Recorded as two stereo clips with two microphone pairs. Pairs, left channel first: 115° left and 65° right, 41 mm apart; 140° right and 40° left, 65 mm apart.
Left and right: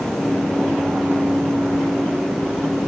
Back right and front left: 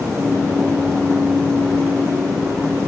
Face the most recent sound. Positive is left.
No sound to turn to.